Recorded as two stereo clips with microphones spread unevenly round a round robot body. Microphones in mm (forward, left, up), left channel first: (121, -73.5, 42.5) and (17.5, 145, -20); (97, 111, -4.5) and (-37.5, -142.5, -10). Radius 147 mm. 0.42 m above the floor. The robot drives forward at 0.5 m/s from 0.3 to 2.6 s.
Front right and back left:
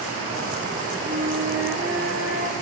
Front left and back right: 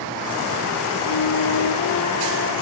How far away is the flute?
About 2.5 m.